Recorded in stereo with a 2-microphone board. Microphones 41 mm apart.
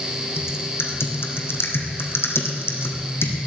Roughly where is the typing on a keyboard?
Left.